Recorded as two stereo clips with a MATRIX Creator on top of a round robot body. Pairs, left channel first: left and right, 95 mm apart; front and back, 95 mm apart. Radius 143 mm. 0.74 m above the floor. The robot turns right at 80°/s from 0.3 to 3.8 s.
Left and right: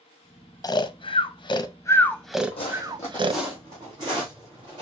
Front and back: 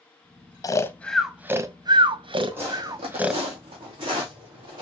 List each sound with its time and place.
0.6 s snoring: 45° left, 0.7 m; by 3.4 s 90° right, 0.7 m
2.5 s footsteps: 110° left, 1.6 m; by 4.8 s 140° right, 3 m